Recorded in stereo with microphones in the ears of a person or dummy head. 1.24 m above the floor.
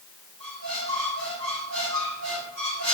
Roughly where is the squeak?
Right.